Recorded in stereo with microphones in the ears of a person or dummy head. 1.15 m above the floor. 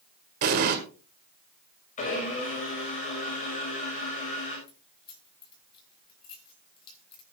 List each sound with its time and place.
0.4 s an explosion: 50° right (ahead or behind), 1.4 m
2.0 s a blender: 35° left (ahead or behind), 6.5 m
4.7 s keys jangling: 35° left (ahead or behind), 4.5 m